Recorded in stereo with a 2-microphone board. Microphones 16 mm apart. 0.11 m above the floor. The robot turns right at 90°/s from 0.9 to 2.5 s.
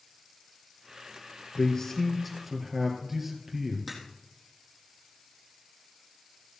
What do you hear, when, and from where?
1.6 s a man speaking: 115° left, 3 m; by 3.8 s 160° right, 3 m
3.9 s a crack: centre (ahead or behind), 4 m